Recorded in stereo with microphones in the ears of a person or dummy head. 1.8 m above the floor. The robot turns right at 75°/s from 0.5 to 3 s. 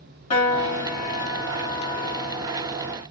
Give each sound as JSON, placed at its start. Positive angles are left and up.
{"t": 0.3, "sound": "a piano", "azimuth_deg": 45, "distance_m": 1.6}